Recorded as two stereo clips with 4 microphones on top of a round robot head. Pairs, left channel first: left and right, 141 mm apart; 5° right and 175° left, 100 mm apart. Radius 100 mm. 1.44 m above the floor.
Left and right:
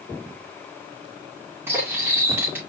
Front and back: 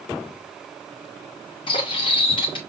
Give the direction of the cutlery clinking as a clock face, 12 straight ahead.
1 o'clock.